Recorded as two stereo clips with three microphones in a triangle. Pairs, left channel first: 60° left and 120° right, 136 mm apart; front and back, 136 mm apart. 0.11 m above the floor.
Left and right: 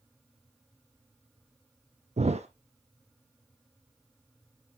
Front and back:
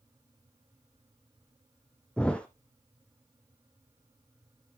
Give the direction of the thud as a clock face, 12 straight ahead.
3 o'clock.